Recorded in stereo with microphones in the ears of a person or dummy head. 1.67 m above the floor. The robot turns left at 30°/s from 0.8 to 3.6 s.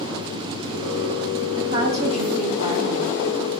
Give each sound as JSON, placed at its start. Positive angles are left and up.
{"t": 1.6, "sound": "a woman speaking", "azimuth_deg": -35, "distance_m": 1.5}